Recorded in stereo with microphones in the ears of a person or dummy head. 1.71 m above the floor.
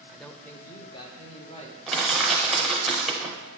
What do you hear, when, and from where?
0.1 s a man speaking: 10° right (ahead or behind), 0.6 m; by 1.8 s 35° left (ahead or behind), 1.5 m
1.9 s crushing: 5° right (ahead or behind), 0.9 m